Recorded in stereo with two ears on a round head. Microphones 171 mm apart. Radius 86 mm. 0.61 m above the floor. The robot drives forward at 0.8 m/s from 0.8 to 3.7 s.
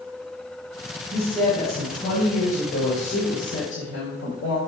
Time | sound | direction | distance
1.1 | a woman speaking | 35° left (ahead or behind) | 3.5 m